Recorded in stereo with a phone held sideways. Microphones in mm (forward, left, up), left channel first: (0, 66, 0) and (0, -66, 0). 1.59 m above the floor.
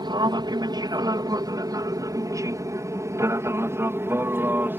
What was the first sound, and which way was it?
An aircraft, 35° right (ahead or behind).